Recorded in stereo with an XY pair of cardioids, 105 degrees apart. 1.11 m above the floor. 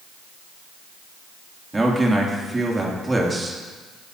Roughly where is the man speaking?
Ahead.